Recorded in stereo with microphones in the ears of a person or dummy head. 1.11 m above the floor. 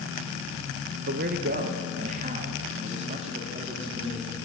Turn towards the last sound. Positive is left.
turn(degrees=-35)  # may be behind; listen again after turning